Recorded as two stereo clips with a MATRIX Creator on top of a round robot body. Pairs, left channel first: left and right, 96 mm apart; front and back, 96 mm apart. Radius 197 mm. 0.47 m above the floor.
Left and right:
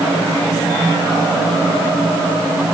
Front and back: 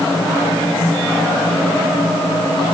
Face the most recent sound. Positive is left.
No sound to turn to.